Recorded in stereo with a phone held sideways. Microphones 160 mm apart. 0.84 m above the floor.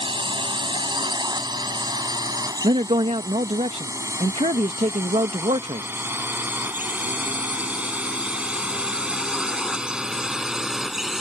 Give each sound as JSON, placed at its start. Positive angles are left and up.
{"t": 0.0, "sound": "a drone", "side_deg": -30}
{"t": 2.6, "sound": "a man speaking", "side_deg": -40}